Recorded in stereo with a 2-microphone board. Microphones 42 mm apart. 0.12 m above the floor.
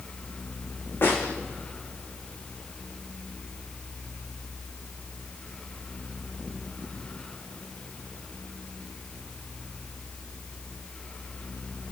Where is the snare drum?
60° left (ahead or behind), 3 m.